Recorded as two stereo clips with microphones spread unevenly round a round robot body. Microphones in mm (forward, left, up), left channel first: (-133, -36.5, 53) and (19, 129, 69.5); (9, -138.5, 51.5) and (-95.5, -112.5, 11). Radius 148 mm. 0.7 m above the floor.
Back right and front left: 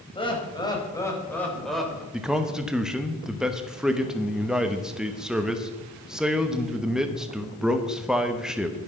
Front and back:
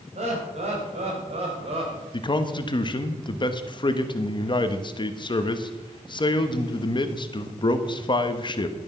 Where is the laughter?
160° left, 5 m; by 2.0 s 135° left, 3 m.